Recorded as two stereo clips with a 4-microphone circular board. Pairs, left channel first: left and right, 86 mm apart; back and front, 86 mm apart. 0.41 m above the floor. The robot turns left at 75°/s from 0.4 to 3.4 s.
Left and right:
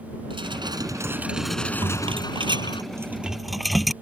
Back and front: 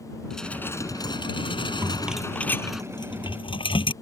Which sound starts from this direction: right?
Dishes clattering, at 0.3 s.